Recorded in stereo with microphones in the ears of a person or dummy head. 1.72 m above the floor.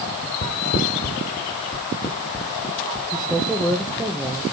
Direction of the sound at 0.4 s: 45° left (ahead or behind).